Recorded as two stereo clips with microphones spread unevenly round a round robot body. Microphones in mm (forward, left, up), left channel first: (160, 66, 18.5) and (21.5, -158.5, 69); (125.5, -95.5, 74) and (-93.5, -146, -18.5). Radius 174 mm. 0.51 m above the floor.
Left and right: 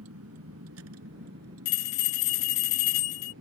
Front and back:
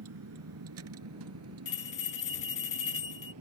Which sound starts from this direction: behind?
A vehicle, at 0.0 s.